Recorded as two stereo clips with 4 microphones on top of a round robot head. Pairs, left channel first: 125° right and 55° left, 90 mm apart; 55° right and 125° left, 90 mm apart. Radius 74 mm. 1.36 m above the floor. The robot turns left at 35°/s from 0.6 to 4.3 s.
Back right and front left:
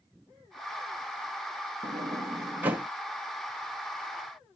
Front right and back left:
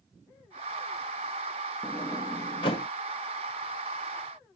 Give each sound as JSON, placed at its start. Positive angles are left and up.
{"t": 1.8, "sound": "a sliding door", "azimuth_deg": 10, "distance_m": 1.0}